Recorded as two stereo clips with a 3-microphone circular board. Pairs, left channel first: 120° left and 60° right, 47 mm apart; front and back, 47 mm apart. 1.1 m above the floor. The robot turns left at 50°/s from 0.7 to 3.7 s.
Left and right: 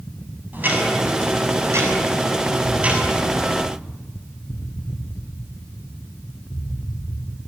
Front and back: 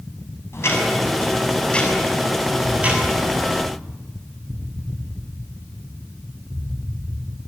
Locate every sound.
0.5 s ticking: 15° right, 6.5 m; by 3.6 s 160° right, 6.5 m
2.6 s an explosion: 165° right, 2.5 m; by 7.4 s 145° left, 2.5 m